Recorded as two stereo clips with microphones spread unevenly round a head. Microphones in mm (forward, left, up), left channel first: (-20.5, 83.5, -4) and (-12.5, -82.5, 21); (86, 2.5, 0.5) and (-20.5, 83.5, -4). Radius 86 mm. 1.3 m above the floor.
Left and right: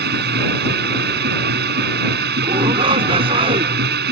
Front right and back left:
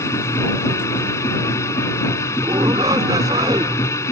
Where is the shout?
145° right.